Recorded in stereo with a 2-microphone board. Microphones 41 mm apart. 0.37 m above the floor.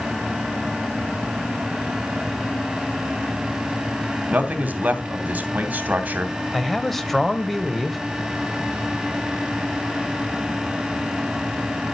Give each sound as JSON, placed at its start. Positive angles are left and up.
{"t": 4.3, "sound": "a man speaking", "side_deg": -40, "distance_m": 2.5}
{"t": 6.5, "sound": "a man speaking", "side_deg": 5, "distance_m": 1.7}